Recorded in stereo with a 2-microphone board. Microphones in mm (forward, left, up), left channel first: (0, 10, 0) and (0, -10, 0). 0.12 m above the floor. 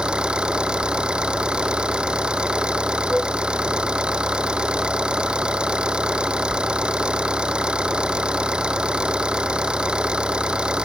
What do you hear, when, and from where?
0.0 s an engine running: 50° right (ahead or behind)
3.1 s a flute: 10° right (ahead or behind)